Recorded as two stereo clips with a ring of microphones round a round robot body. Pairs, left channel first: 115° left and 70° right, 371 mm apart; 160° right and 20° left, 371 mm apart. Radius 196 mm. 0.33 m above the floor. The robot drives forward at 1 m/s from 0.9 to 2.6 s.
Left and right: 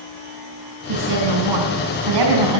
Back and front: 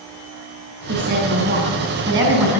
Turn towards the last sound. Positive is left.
turn(degrees=-50)